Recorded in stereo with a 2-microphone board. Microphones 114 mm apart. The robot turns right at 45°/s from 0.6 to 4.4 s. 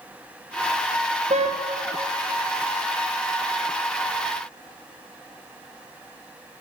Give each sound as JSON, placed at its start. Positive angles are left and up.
{"t": 1.3, "sound": "a car horn", "side_deg": -75, "distance_m": 3.0}